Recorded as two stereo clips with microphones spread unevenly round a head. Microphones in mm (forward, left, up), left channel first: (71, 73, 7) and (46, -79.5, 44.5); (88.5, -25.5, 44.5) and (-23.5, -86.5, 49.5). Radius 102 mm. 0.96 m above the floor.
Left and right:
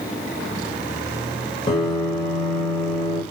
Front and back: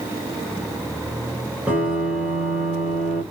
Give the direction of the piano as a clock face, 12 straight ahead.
8 o'clock.